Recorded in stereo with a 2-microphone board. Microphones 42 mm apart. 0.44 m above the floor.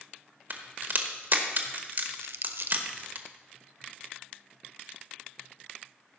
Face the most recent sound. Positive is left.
turn(degrees=-80)